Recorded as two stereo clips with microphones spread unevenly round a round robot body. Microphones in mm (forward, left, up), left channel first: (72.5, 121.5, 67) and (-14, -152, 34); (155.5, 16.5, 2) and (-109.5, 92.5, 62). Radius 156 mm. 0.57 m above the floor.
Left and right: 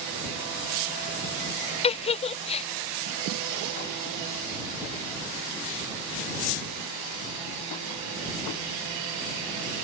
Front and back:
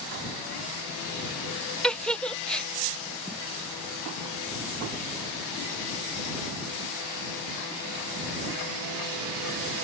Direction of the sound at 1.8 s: 20° left.